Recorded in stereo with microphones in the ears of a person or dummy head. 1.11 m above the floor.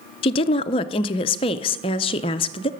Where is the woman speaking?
30° left (ahead or behind), 0.6 m.